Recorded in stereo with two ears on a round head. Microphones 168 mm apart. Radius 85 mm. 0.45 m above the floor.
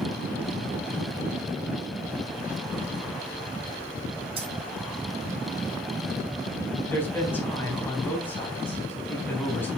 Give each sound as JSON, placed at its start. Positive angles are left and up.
{"t": 4.4, "sound": "keys jangling", "side_deg": -30, "distance_m": 3.0}
{"t": 6.9, "sound": "a man speaking", "side_deg": 10, "distance_m": 3.5}